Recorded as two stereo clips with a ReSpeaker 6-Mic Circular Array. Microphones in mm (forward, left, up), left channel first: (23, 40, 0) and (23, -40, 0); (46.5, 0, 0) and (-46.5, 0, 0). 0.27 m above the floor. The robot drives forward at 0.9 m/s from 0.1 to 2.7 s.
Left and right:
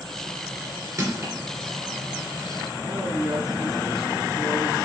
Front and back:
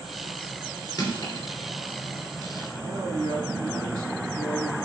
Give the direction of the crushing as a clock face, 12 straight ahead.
2 o'clock.